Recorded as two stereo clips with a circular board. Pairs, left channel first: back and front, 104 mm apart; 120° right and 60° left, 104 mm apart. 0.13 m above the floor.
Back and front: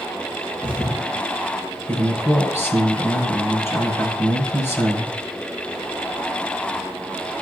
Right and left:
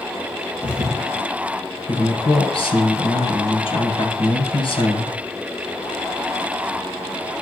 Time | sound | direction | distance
0.6 | a thud | 140° left | 4 m
1.9 | a man speaking | 120° right | 2 m